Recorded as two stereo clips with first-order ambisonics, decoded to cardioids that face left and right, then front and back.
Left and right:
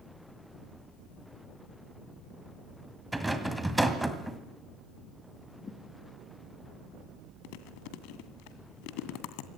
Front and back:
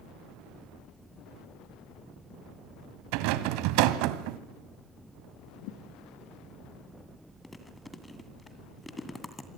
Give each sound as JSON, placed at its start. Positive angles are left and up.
{"t": 3.1, "sound": "a rattle", "azimuth_deg": -175, "distance_m": 1.9}
{"t": 5.6, "sound": "a thud", "azimuth_deg": 15, "distance_m": 2.0}
{"t": 7.4, "sound": "chewing", "azimuth_deg": 80, "distance_m": 2.0}